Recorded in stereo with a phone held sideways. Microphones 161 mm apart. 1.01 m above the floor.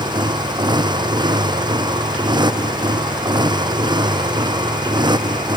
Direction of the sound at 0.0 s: 25° right (ahead or behind).